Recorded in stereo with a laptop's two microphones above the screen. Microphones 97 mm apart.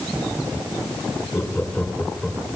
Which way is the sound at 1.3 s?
20° left (ahead or behind).